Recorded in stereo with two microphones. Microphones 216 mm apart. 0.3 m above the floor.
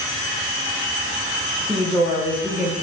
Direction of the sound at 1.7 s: 5° right (ahead or behind).